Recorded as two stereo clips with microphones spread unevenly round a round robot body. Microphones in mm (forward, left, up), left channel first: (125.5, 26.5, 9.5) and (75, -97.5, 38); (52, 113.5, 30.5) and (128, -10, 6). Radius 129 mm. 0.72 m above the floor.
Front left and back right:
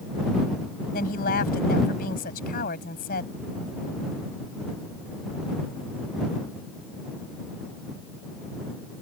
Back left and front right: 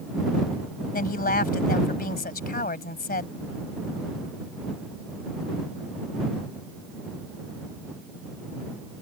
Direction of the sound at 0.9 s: 100° left.